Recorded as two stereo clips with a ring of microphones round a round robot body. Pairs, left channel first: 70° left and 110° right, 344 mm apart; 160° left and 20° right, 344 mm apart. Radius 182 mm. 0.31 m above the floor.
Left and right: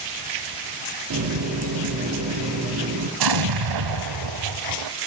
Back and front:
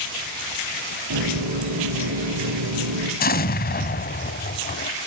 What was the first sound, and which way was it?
A running tap, 65° right.